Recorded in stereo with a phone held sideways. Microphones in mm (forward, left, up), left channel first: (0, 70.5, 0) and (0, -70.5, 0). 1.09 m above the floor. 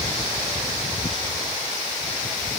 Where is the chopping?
I don't hear chopping.